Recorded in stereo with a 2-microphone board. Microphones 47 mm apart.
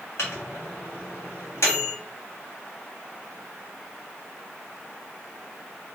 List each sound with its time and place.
0.2 s a microwave: 60° left (ahead or behind), 0.9 m